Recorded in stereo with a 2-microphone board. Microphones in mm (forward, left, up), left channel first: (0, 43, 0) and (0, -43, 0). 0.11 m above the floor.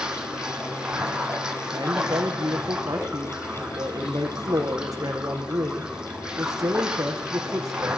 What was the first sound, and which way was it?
Running water, 10° right (ahead or behind).